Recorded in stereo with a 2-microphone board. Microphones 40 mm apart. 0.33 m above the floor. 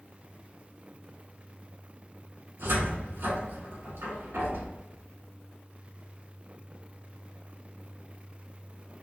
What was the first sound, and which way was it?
A cupboard door, 80° right.